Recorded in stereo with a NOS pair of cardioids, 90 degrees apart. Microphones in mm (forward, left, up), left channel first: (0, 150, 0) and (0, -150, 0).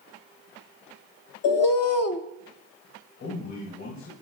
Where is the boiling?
I don't hear boiling.